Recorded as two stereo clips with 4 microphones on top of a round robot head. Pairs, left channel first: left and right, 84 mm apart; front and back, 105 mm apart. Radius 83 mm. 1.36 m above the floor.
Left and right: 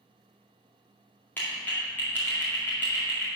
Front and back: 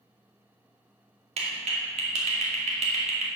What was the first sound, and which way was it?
A clap, 165° left.